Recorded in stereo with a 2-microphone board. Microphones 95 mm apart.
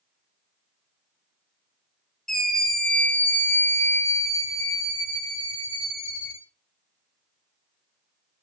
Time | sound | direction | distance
2.3 | a scream | 5° left (ahead or behind) | 1.8 m